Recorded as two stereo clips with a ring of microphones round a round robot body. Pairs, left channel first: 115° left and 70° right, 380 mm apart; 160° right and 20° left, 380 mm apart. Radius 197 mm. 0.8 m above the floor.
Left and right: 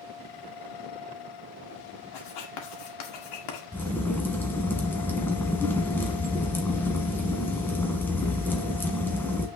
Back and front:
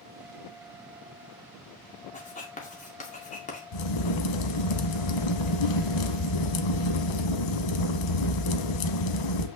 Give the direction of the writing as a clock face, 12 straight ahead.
8 o'clock.